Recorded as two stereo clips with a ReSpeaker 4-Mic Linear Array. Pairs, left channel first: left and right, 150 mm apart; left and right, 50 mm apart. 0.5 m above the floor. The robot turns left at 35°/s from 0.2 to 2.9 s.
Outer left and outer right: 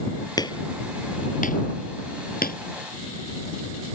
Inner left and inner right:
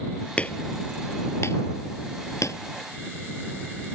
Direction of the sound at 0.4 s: 25° left (ahead or behind).